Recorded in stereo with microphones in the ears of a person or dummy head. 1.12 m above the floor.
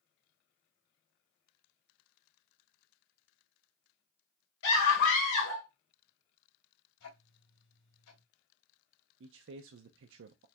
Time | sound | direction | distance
4.6 | a scream | 70° left (ahead or behind) | 3 m
7.0 | ticking | 80° left | 2.5 m
9.2 | a man speaking | 65° right (ahead or behind) | 0.5 m